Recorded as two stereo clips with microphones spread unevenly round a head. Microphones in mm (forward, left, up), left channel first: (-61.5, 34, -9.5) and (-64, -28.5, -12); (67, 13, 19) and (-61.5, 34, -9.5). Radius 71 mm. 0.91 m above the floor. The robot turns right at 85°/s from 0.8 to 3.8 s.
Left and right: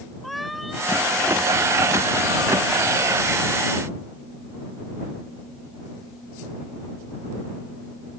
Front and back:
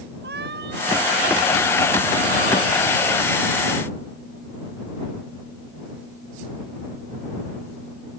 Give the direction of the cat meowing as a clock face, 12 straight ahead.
6 o'clock.